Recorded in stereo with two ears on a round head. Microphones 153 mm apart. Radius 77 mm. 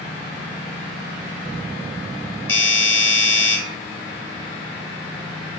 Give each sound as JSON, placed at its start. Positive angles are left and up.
{"t": 2.5, "sound": "a doorbell", "side_deg": 15, "distance_m": 1.2}